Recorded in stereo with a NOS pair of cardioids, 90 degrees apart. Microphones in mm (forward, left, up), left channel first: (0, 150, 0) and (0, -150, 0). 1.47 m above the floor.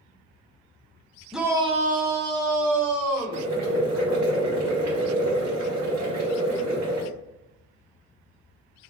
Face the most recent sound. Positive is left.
turn(degrees=-70)